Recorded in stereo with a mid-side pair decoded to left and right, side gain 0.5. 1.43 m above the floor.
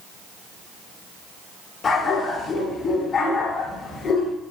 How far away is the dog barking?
About 8 m.